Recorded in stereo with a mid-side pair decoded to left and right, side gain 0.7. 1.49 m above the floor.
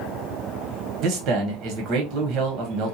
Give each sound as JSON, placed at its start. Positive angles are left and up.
{"t": 1.0, "sound": "a man speaking", "azimuth_deg": -50, "distance_m": 1.3}